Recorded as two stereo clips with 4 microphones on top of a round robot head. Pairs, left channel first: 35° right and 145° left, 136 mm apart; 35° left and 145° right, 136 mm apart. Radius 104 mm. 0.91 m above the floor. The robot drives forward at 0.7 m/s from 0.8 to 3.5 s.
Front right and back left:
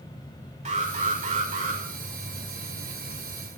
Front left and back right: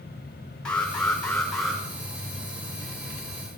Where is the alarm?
115° left, 5.5 m; by 1.8 s 120° left, 6 m.